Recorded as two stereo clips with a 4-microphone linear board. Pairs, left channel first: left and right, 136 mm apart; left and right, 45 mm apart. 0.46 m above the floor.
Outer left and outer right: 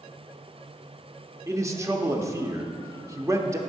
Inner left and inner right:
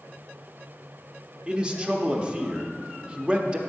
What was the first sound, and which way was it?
A man speaking, 20° right (ahead or behind).